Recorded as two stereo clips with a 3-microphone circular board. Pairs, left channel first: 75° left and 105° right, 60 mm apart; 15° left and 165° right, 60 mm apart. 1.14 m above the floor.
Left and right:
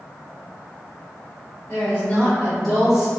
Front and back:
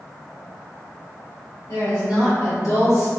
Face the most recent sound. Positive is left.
turn(degrees=-25)